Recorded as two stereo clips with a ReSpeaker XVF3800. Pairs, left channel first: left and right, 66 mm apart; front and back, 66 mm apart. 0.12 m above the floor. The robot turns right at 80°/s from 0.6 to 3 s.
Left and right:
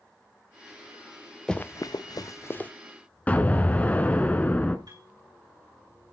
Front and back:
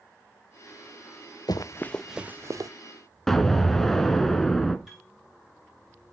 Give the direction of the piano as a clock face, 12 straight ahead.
3 o'clock.